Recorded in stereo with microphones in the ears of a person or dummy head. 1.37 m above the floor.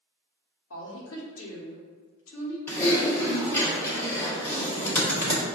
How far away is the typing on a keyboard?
About 0.9 m.